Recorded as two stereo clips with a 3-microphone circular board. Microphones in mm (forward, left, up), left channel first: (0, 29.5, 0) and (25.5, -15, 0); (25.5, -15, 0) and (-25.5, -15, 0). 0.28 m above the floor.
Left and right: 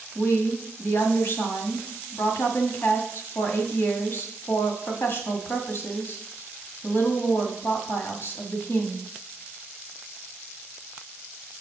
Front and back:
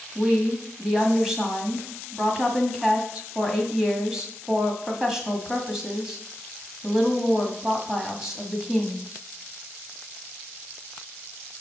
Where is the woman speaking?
100° left, 1.9 m.